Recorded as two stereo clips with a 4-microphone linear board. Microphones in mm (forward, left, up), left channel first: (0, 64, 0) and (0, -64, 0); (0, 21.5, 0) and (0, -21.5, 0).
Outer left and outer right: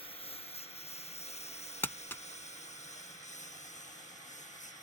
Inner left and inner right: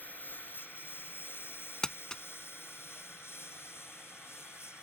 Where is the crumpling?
15° left (ahead or behind).